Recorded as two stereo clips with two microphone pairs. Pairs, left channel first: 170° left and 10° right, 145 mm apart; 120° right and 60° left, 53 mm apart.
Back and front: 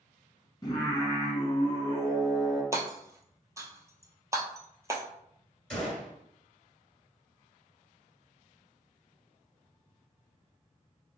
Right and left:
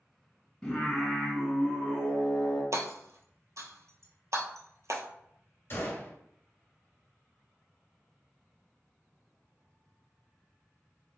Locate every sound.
0.6 s singing: 175° right, 1.7 m
2.7 s hammering: 60° left, 0.8 m
5.7 s a gunshot: 115° right, 1.7 m